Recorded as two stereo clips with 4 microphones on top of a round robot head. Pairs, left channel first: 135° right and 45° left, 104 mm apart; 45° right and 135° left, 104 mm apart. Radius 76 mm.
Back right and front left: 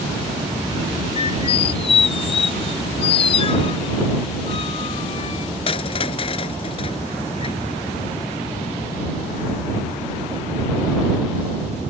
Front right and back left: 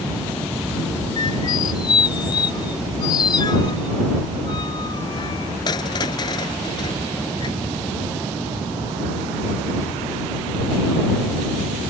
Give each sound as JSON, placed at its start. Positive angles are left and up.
{"t": 1.2, "sound": "a squeak", "azimuth_deg": -100}